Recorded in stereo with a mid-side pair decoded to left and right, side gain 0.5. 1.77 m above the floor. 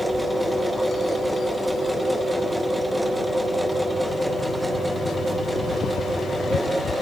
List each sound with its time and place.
0.0 s a machine running: 10° right, 2.5 m